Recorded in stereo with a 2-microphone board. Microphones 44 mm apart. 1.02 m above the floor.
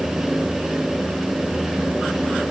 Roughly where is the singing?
I don't hear singing.